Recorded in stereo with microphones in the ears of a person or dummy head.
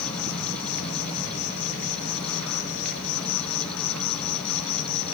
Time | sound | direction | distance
0.0 | an insect | 80° left | 4 m